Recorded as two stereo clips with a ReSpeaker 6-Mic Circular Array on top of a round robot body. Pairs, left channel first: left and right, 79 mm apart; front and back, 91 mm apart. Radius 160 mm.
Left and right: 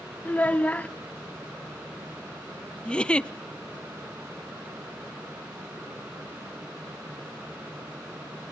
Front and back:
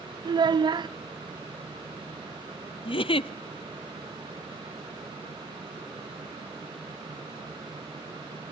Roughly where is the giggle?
Ahead.